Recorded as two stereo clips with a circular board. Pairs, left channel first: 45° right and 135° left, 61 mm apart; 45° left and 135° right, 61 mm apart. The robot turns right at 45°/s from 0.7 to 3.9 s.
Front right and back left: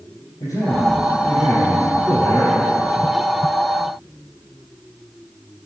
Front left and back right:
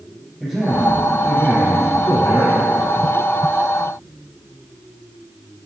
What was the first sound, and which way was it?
A man speaking, 40° right.